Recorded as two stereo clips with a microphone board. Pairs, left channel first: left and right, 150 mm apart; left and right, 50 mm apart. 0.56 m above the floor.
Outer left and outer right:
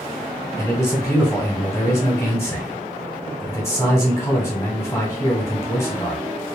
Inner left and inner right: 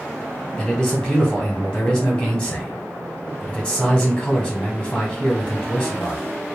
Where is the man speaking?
15° left (ahead or behind), 1.3 m.